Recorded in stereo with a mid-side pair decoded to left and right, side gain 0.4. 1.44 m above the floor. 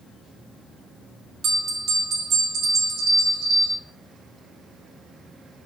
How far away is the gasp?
No gasp in this recording.